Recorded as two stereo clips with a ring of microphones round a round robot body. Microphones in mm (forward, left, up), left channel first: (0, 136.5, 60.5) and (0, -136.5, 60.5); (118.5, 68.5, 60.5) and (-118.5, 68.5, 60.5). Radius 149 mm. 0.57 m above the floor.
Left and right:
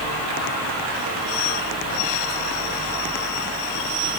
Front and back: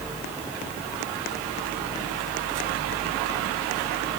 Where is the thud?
I don't hear a thud.